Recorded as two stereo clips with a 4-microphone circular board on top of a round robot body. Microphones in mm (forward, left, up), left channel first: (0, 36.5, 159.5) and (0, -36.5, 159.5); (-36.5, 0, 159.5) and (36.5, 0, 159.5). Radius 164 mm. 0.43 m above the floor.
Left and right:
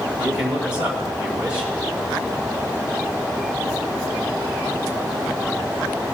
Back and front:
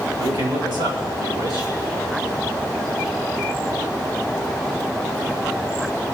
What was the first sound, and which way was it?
A man speaking, 20° right.